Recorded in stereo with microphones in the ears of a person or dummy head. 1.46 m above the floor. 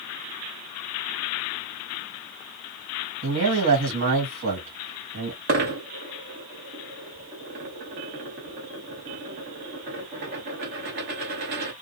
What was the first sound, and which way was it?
A man speaking, 75° right (ahead or behind).